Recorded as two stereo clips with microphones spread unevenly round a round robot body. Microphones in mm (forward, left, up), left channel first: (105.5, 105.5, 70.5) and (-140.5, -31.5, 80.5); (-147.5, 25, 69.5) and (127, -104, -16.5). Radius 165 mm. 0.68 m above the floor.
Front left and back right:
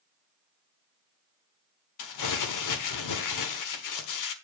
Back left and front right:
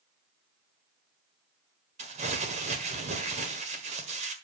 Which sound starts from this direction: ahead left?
Crumpling, at 2.0 s.